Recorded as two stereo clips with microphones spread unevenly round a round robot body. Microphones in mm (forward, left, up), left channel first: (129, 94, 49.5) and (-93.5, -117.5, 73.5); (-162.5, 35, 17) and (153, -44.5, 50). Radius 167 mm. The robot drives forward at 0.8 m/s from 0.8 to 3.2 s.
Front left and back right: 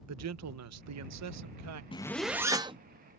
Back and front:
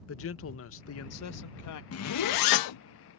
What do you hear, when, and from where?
0.1 s a man speaking: 165° right; by 1.8 s 170° right
1.9 s a zipper: 115° left; by 2.8 s 150° left